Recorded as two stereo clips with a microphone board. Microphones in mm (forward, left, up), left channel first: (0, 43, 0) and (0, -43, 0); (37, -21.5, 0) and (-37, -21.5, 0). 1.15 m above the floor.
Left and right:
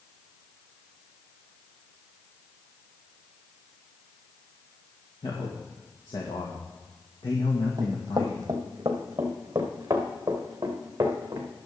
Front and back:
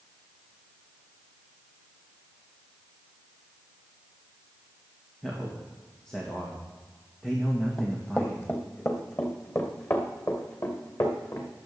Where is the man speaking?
80° left, 1.9 m.